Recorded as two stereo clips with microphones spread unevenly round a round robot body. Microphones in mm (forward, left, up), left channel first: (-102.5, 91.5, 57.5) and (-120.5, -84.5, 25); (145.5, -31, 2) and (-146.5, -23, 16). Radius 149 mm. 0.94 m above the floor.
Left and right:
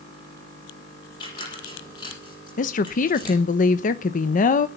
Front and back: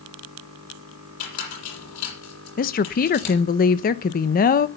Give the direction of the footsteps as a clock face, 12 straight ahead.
No footsteps in this recording.